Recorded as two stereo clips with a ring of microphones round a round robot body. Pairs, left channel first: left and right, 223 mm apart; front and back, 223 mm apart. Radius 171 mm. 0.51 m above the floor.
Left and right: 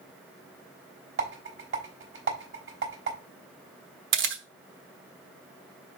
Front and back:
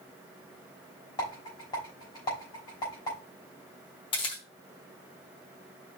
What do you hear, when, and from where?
1.2 s a rattle: 75° right, 3.5 m
4.1 s a camera shutter: 70° right, 1.1 m